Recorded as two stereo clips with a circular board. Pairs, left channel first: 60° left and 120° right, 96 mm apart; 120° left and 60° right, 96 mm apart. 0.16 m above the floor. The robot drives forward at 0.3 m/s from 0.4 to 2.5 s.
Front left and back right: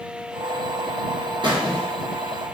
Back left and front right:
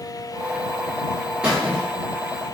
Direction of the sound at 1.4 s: 140° right.